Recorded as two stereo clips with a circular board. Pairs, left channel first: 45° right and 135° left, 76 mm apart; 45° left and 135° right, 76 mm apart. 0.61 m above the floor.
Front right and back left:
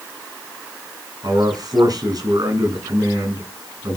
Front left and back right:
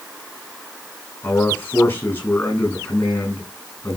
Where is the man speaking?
100° left, 6 m.